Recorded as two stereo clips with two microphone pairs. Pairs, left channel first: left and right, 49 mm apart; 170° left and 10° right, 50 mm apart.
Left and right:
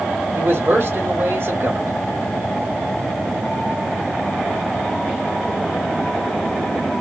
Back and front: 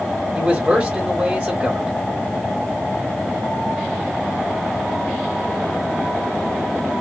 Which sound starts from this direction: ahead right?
A man speaking, at 0.3 s.